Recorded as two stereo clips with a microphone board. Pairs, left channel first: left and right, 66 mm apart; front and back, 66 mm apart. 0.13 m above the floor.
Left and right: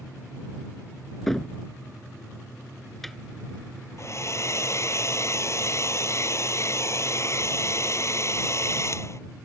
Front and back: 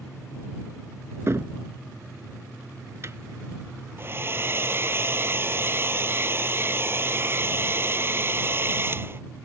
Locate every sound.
1.3 s a cupboard door: 175° left
4.0 s a hair dryer: 130° left